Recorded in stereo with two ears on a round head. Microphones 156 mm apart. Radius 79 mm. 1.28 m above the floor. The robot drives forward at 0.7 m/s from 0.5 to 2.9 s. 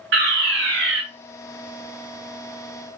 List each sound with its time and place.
0.1 s a fire alarm: 75° right (ahead or behind), 4 m